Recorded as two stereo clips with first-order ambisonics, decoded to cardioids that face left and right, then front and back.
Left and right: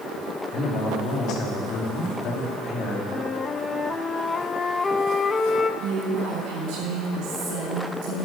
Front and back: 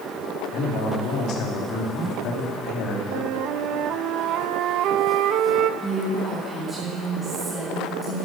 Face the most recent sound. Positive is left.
turn(degrees=-95)